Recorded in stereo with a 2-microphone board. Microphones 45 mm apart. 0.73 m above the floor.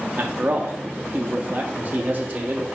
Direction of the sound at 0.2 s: 40° right (ahead or behind).